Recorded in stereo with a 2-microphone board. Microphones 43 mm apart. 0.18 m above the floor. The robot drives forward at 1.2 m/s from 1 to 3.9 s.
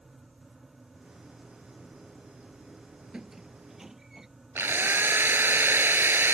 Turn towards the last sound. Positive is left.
turn(degrees=-60)  # may be behind; listen again after turning